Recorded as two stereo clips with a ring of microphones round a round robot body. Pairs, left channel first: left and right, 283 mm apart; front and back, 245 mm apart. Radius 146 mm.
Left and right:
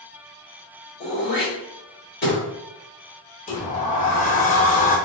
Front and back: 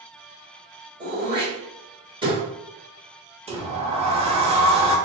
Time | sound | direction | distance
1.0 | throat clearing | 120° left | 1.9 m
3.5 | a sliding door | 130° left | 0.8 m